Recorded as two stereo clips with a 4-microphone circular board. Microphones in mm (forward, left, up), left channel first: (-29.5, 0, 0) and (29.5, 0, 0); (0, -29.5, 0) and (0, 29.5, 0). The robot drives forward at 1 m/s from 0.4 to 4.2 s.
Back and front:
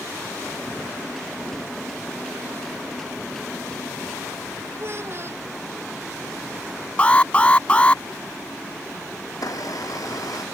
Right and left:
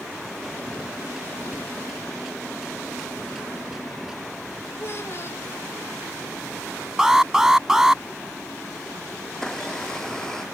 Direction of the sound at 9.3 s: 170° right.